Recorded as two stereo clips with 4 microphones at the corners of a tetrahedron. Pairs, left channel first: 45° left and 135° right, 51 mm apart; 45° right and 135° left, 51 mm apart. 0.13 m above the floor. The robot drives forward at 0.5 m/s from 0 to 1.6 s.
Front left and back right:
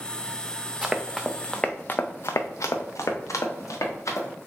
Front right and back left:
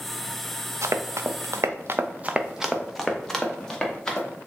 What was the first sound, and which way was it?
Running footsteps, 145° left.